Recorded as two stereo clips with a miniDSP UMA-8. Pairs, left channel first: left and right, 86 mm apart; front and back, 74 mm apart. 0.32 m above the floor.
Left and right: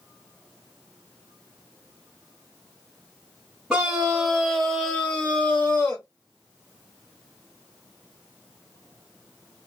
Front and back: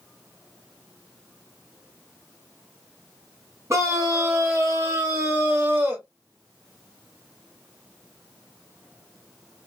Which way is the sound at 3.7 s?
170° right.